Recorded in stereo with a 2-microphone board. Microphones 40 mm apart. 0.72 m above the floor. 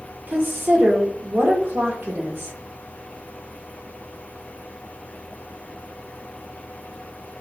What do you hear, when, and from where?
0.3 s a woman speaking: 70° right (ahead or behind), 1.4 m